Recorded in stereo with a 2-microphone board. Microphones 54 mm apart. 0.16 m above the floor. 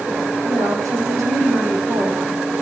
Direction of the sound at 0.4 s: 75° right (ahead or behind).